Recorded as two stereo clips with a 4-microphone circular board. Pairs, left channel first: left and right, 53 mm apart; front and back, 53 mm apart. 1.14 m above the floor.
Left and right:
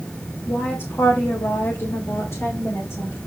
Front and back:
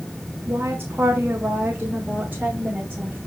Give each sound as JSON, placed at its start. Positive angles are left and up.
{"t": 0.5, "sound": "a woman speaking", "azimuth_deg": 130, "distance_m": 2.0}